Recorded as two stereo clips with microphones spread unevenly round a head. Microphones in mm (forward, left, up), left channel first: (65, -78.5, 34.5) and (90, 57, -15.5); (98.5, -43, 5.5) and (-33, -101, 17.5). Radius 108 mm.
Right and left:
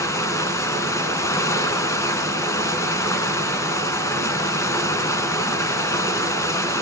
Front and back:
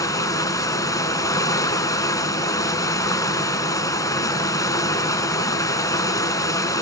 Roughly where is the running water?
Ahead right.